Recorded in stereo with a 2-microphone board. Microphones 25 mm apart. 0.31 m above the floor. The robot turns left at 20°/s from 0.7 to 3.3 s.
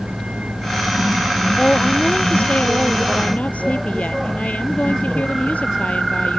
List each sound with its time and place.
0.0 s a vehicle: 125° right; by 6.4 s 175° right
1.6 s a woman speaking: 140° left; by 6.4 s 105° left